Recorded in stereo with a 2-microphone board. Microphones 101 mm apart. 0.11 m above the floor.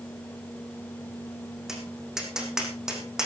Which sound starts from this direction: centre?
Tapping, at 1.7 s.